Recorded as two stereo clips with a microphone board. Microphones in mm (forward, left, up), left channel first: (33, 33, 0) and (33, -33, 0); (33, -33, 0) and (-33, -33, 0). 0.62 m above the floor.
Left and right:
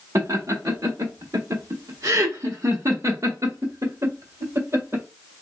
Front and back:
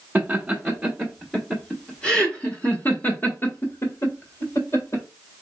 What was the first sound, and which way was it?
Laughter, 110° right.